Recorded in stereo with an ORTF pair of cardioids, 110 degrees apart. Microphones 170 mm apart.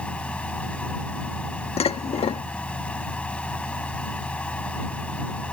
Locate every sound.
0.0 s a fan: 5° left
1.8 s dishes clattering: 35° left